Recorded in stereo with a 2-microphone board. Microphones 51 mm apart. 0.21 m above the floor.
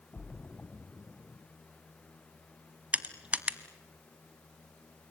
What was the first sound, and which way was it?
A splash, 35° left (ahead or behind).